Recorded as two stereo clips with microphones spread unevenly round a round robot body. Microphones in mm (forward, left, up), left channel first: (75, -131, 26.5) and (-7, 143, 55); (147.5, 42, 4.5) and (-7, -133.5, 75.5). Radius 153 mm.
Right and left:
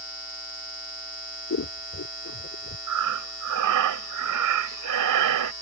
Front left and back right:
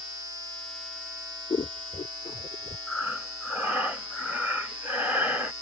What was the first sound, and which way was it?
Scissors, 25° right.